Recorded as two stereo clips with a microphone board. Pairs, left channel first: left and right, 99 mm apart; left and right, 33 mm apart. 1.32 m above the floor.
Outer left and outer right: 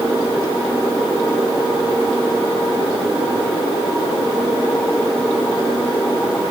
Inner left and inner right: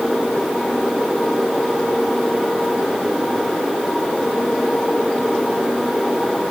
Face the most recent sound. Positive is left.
No sound to turn to.